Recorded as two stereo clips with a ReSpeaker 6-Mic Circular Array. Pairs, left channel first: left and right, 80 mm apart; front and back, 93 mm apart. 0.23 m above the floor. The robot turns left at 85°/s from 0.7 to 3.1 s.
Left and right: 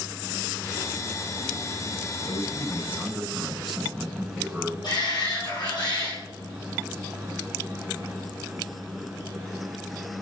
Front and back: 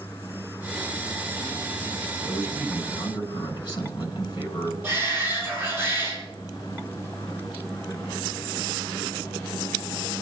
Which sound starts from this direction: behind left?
A shout, at 4.8 s.